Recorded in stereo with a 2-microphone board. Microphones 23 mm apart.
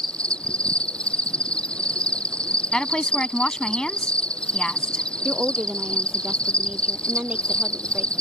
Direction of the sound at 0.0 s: 50° left (ahead or behind).